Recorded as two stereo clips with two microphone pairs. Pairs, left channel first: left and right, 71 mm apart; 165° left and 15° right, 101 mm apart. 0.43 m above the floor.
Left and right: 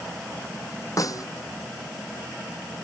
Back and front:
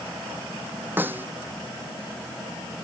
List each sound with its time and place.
1.0 s a snare drum: 55° left